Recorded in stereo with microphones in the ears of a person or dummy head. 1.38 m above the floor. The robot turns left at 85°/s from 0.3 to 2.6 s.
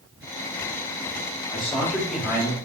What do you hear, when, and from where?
1.5 s a man speaking: 55° left, 1.6 m; by 2.5 s 35° right, 1.6 m